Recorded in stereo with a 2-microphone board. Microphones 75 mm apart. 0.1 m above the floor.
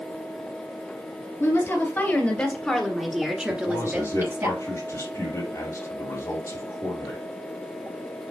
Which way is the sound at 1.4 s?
35° left (ahead or behind).